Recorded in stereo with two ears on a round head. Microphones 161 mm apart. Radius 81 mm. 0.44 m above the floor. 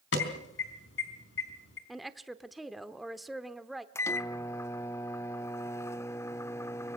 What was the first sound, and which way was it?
An alarm, 75° left (ahead or behind).